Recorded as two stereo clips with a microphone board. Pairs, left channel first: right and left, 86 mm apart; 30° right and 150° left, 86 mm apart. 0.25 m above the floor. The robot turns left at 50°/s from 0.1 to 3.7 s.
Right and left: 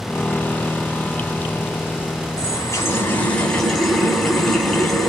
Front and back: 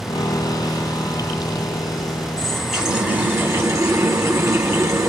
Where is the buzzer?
I don't hear a buzzer.